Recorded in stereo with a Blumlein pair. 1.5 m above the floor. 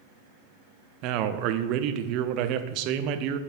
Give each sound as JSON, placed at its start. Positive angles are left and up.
{"t": 1.0, "sound": "a man speaking", "azimuth_deg": -40, "distance_m": 0.6}